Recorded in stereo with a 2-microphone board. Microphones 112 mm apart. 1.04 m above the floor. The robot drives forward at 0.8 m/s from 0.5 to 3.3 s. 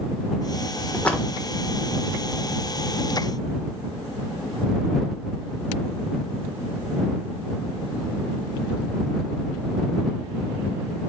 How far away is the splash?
About 1.2 m.